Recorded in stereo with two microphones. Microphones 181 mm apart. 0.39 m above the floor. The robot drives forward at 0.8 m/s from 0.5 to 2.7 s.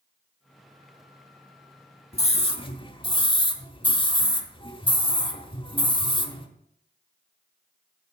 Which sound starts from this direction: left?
A scream, at 2.1 s.